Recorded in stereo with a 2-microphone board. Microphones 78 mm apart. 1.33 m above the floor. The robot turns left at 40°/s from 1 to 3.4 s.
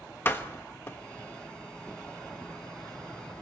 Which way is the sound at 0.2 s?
25° left (ahead or behind).